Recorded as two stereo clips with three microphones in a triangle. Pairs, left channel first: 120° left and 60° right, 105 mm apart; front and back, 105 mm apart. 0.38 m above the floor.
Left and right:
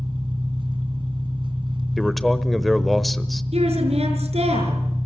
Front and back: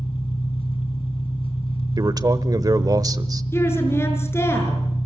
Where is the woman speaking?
65° right, 6 m.